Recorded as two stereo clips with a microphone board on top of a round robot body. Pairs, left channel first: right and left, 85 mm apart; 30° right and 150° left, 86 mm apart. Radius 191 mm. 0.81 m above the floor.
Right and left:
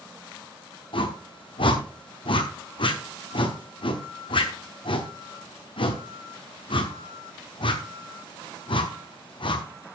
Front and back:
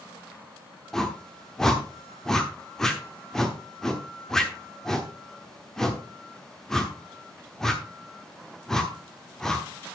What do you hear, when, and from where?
0.9 s a whoosh: 115° right, 1.0 m